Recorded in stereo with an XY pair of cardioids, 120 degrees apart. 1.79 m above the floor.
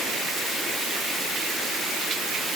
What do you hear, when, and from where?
Only background noise.